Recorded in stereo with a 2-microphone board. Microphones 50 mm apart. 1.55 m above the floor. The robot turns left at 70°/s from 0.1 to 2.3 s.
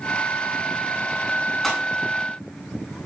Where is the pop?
Centre (ahead or behind), 9 m; by 1.8 s 15° left (ahead or behind), 9 m.